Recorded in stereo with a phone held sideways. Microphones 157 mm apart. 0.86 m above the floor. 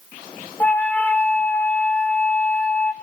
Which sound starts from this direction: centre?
A flute, at 0.6 s.